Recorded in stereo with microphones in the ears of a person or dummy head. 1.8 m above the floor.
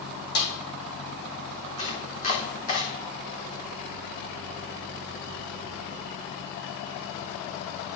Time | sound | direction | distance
0.3 | a snare drum | 50° left (ahead or behind) | 4.5 m
1.8 | chopping | 35° left (ahead or behind) | 3.5 m